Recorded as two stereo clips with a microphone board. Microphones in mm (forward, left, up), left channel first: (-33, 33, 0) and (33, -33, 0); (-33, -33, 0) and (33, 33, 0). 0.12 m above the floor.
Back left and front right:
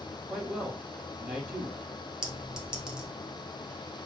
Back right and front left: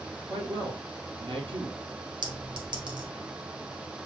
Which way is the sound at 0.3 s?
20° left.